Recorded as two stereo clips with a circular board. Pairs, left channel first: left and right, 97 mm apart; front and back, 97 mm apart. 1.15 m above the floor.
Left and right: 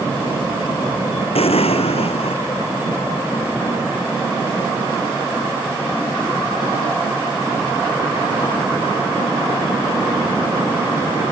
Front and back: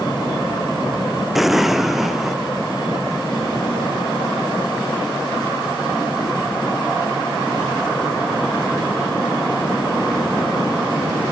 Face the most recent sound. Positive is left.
turn(degrees=95)